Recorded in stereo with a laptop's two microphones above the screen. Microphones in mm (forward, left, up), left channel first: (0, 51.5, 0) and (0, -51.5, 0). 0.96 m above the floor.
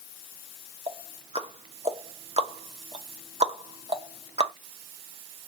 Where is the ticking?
80° right, 0.9 m.